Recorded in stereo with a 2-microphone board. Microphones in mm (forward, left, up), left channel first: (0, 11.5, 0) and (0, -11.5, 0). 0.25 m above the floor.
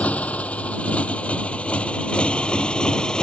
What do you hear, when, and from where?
0.0 s a motorcycle: 75° left (ahead or behind); by 3.2 s 40° left (ahead or behind)